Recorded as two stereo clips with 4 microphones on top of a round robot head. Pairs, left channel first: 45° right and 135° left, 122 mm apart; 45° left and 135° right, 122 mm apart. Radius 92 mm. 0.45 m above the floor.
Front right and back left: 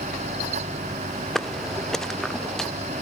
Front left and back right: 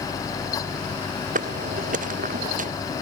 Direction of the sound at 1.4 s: 135° right.